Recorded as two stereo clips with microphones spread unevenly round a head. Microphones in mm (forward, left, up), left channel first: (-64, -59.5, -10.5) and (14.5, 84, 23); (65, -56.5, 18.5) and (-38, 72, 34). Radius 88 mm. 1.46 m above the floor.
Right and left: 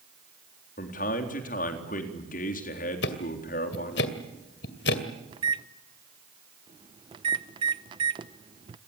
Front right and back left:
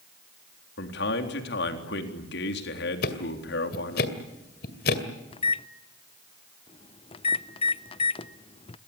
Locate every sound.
0.8 s a man speaking: 75° right, 3.5 m
3.0 s ticking: 85° right, 2 m
5.3 s a microwave: 5° left, 0.6 m